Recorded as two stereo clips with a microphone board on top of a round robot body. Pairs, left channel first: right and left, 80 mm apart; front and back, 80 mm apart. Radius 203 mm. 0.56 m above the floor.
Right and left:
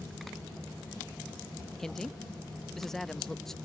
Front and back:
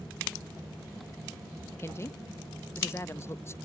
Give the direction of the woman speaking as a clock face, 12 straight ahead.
12 o'clock.